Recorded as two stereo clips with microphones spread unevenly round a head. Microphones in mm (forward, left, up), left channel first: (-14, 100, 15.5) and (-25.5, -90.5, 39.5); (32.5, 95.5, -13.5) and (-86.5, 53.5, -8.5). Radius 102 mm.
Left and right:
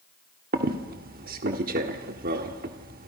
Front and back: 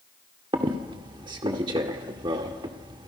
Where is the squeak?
110° right, 1.4 m.